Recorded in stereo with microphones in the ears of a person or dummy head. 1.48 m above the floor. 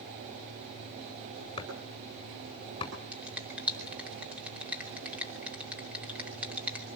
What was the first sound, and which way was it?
Chopping, 25° left (ahead or behind).